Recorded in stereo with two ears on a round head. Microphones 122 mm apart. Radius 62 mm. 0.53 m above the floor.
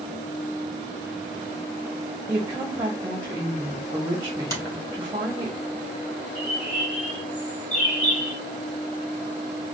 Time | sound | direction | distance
2.3 | a woman speaking | 20° right (ahead or behind) | 1.2 m
4.5 | a finger snap | 25° left (ahead or behind) | 2.5 m
6.3 | a bird | 10° left (ahead or behind) | 3 m